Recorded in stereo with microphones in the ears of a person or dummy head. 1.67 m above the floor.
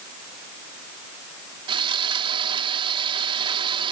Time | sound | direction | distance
1.7 | sawing | 25° right (ahead or behind) | ?